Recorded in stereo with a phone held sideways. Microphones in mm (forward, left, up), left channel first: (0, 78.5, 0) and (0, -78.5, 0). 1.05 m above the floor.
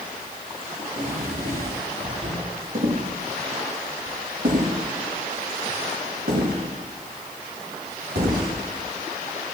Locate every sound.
0.8 s a drawer: 70° right (ahead or behind), 8 m
2.8 s footsteps: 55° right (ahead or behind), 8 m; by 8.5 s 80° right, 11 m